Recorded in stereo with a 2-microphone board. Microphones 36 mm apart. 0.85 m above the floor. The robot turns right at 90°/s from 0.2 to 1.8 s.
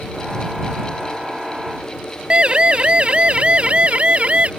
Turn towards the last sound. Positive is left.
turn(degrees=-40)  # may be behind; listen again after turning